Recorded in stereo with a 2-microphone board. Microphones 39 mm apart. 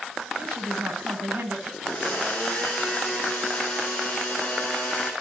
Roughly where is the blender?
Left.